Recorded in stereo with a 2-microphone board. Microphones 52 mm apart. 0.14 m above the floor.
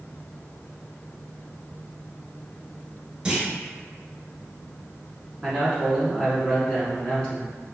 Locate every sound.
3.2 s a clunk: 20° right (ahead or behind), 0.7 m
5.4 s a man speaking: 20° left (ahead or behind), 1.2 m